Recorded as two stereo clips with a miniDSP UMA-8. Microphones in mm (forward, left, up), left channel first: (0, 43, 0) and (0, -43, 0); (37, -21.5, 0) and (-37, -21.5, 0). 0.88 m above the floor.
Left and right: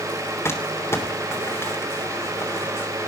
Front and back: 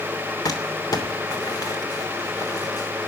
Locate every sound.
0.5 s crumpling: 30° left, 3 m